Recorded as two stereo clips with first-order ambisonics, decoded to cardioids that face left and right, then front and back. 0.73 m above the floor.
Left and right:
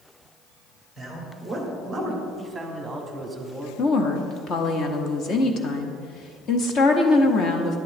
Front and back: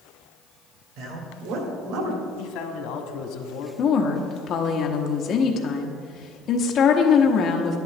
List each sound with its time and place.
1.0 s a man speaking: 175° left, 2.5 m; by 2.2 s 175° right, 1.8 m
2.4 s a man speaking: 5° right, 1.3 m
3.8 s a woman speaking: 45° left, 1.0 m